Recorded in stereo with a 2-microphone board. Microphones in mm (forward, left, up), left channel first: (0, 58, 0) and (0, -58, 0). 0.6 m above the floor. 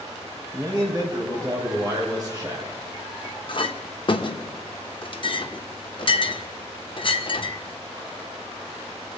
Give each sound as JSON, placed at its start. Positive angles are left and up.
{"t": 0.5, "sound": "a man speaking", "side_deg": -35, "distance_m": 4.0}
{"t": 3.5, "sound": "a clink", "side_deg": 45, "distance_m": 0.7}